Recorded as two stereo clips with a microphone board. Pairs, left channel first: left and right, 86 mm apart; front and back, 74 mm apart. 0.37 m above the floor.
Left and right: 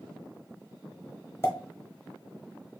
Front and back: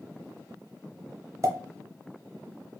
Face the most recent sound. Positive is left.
turn(degrees=150)